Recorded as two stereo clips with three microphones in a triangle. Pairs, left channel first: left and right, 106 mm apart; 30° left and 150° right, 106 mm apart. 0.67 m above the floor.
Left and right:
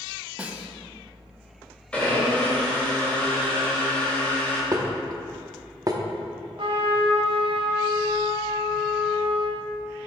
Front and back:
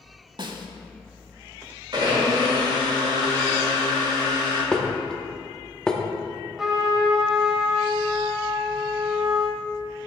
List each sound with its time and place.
0.4 s a snare drum: 160° right, 0.7 m
1.9 s a blender: 165° left, 2.5 m
4.7 s dishes clattering: 50° right, 0.7 m
6.6 s a trumpet: 65° right, 1.2 m